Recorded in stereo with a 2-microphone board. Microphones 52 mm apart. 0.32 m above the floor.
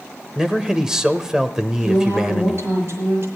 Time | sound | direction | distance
0.3 | a man speaking | 10° right (ahead or behind) | 0.8 m
1.8 | a woman speaking | 55° right (ahead or behind) | 7 m